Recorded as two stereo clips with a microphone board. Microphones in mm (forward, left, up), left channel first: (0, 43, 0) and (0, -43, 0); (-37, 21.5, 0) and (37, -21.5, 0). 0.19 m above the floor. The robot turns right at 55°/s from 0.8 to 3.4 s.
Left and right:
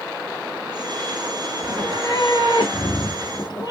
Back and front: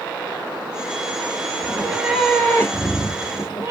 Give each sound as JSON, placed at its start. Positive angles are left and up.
{"t": 1.6, "sound": "a cat meowing", "azimuth_deg": 25, "distance_m": 1.3}